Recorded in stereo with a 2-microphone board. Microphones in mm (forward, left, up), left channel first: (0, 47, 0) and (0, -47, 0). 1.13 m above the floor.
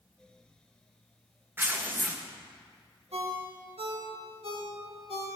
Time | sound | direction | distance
1.6 | tearing paper | 20° right (ahead or behind) | 1.0 m
3.1 | a ringtone | 85° right | 1.9 m